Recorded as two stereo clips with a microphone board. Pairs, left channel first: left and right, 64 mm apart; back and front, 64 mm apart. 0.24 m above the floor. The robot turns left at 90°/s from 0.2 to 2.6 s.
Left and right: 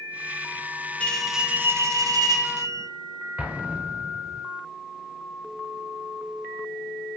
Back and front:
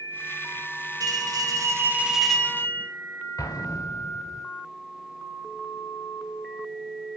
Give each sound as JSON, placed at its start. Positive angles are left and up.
{"t": 1.0, "sound": "a bell", "azimuth_deg": 25, "distance_m": 1.2}
{"t": 3.4, "sound": "an explosion", "azimuth_deg": -160, "distance_m": 1.0}